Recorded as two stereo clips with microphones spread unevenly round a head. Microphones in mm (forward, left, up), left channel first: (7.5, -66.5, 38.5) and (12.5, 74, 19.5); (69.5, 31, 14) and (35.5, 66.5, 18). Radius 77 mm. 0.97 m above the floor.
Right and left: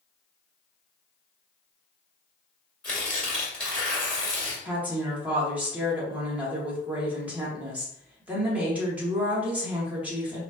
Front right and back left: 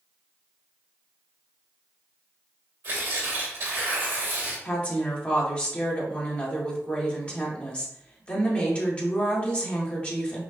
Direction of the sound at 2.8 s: 175° right.